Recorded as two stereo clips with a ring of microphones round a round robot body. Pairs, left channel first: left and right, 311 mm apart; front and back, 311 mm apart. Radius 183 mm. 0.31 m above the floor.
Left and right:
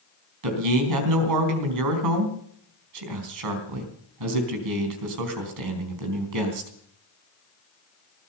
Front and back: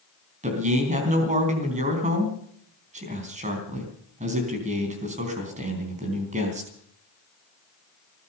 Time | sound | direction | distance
0.4 | a man speaking | 110° right | 3.5 m